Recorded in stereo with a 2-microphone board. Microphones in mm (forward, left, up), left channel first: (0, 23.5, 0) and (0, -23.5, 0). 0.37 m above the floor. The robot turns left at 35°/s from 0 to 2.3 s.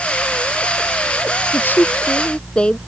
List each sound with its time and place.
1.5 s a woman speaking: 50° left (ahead or behind); by 2.8 s 20° left (ahead or behind)